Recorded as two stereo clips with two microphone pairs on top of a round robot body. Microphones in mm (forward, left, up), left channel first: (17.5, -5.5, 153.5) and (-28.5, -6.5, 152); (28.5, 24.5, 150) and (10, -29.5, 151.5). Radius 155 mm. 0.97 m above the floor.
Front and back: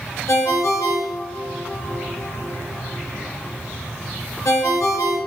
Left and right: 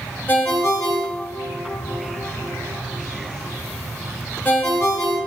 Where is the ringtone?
15° left, 0.9 m.